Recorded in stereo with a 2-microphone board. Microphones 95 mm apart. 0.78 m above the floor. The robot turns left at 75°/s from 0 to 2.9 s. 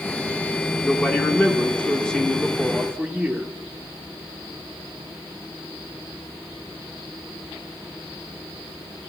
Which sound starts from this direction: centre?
A man speaking, at 0.8 s.